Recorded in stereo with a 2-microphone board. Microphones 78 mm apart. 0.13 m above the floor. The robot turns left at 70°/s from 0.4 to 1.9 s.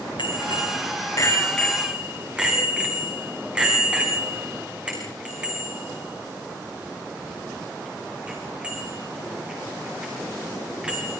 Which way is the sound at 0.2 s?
85° left.